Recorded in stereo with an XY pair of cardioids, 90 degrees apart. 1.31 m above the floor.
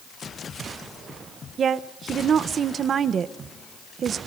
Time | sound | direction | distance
1.6 | a woman speaking | 55° right | 0.9 m